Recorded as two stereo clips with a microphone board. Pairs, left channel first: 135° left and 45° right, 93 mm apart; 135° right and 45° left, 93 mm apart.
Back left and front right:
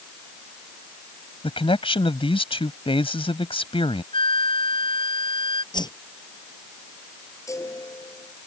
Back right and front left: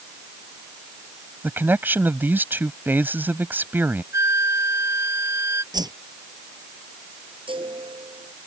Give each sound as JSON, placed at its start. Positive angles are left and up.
{"t": 1.4, "sound": "a man speaking", "azimuth_deg": 115}
{"t": 4.1, "sound": "a flute", "azimuth_deg": 105}
{"t": 5.7, "sound": "a whoosh", "azimuth_deg": 90}
{"t": 7.5, "sound": "a chime", "azimuth_deg": 75}